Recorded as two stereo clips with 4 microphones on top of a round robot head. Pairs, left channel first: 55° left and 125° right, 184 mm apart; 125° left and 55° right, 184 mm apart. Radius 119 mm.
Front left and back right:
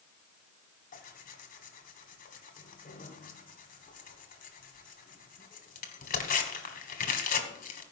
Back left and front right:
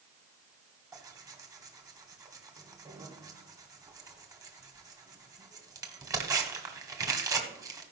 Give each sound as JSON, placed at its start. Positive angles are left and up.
{"t": 0.9, "sound": "tearing paper", "azimuth_deg": 15, "distance_m": 1.6}